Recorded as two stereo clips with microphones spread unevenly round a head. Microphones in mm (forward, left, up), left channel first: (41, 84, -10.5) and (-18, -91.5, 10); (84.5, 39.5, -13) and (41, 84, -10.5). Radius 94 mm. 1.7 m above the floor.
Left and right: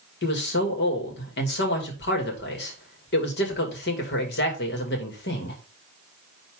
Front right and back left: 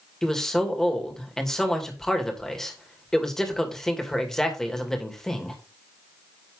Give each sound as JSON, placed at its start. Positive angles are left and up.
{"t": 0.2, "sound": "a man speaking", "azimuth_deg": 35, "distance_m": 2.5}